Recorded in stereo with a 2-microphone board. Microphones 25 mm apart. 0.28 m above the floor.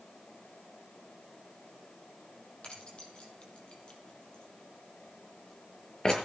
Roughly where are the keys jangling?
Left.